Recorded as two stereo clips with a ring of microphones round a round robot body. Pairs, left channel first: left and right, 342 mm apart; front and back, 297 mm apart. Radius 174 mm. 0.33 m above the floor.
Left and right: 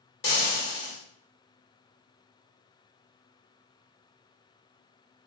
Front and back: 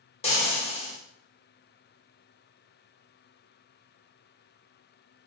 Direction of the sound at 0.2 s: 55° left.